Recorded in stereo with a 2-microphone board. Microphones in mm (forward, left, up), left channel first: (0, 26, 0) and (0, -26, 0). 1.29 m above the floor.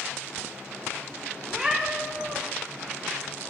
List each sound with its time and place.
1.5 s a cat meowing: 15° right (ahead or behind), 1.1 m